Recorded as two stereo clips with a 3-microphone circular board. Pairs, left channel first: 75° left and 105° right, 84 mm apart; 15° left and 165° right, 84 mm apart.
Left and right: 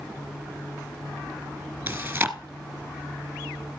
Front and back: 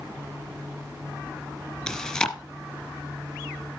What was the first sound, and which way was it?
Chewing, 55° right.